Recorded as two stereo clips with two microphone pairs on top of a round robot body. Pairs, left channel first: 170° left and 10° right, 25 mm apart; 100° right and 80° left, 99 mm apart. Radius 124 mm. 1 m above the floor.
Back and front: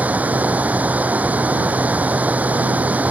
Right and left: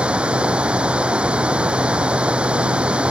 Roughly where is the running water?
Ahead.